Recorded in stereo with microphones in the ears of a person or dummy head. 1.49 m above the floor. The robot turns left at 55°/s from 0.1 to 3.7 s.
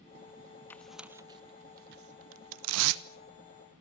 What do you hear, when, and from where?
0.7 s tearing paper: 10° left (ahead or behind), 1.0 m; by 3.0 s 60° right (ahead or behind), 1.0 m